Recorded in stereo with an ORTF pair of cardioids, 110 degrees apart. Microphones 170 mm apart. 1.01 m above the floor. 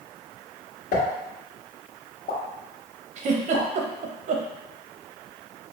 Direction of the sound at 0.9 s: 60° left.